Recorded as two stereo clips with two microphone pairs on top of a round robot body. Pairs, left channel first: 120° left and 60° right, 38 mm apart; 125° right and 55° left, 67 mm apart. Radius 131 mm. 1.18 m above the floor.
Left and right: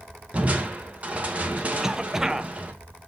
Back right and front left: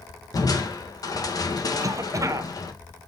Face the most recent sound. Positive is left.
turn(degrees=10)